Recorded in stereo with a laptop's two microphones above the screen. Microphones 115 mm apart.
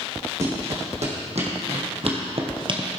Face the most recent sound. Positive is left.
turn(degrees=-40)  # may be behind; listen again after turning